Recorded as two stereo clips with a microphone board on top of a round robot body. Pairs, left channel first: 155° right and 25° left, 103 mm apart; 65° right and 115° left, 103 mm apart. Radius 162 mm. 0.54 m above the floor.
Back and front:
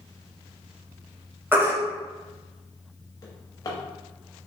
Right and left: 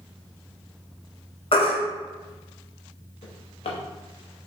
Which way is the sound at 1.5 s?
50° right.